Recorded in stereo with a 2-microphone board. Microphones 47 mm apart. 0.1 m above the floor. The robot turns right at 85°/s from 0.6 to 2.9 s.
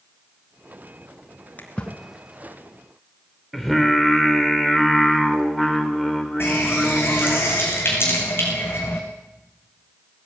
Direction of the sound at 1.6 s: 40° left (ahead or behind).